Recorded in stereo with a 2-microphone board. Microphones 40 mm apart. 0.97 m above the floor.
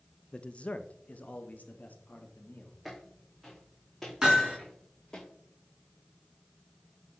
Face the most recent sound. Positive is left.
turn(degrees=-15)  # may be behind; listen again after turning